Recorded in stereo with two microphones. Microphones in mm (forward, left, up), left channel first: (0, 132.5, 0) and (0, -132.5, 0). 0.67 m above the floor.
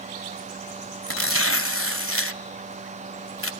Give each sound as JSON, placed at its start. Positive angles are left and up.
{"t": 1.1, "sound": "tearing paper", "side_deg": 55, "distance_m": 0.9}